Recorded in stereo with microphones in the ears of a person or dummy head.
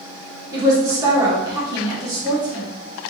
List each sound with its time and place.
0.5 s a woman speaking: 20° right (ahead or behind), 1.0 m